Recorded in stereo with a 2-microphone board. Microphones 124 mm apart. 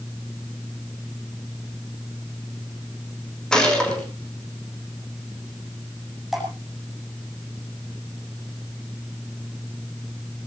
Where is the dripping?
Centre (ahead or behind), 7 m.